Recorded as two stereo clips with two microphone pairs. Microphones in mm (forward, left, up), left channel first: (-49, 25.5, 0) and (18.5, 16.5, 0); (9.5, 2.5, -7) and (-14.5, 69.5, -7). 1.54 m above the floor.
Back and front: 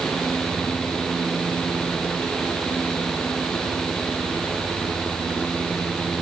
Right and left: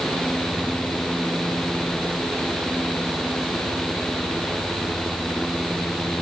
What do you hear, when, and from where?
Only background noise.